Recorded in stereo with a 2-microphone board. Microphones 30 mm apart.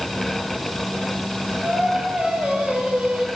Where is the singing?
45° right (ahead or behind), 7 m.